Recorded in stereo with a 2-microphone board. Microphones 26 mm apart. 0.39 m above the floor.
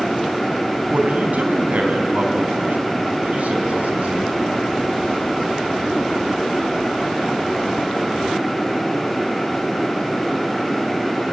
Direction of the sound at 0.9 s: 70° right (ahead or behind).